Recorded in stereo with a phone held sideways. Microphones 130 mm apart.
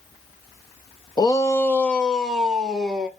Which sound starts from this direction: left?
A shout, at 1.2 s.